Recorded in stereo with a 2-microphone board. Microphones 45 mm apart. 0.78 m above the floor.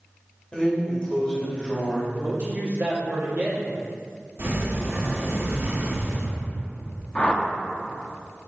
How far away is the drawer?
About 1.8 m.